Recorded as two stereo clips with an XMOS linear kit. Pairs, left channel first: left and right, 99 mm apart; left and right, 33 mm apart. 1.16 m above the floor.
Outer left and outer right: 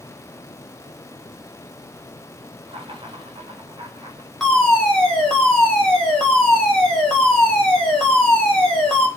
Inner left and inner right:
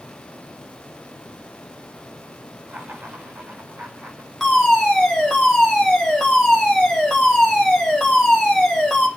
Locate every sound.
2.7 s laughter: 70° right (ahead or behind), 5 m; by 4.3 s 65° right (ahead or behind), 4 m
4.4 s a fire alarm: 5° left (ahead or behind), 4.5 m